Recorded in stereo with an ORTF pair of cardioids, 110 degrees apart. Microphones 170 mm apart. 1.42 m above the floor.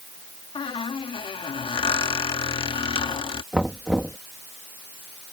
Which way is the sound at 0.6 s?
35° left.